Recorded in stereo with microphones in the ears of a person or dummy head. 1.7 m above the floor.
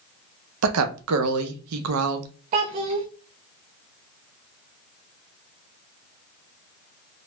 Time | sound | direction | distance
0.6 | a woman speaking | 80° right | 0.6 m
2.5 | a child speaking | 25° right (ahead or behind) | 0.5 m